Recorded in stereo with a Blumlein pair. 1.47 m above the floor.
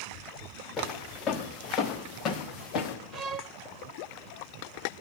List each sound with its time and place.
0.8 s footsteps: 25° left, 6.5 m; by 3.0 s 35° left, 5.5 m
3.1 s a violin: 30° right, 0.9 m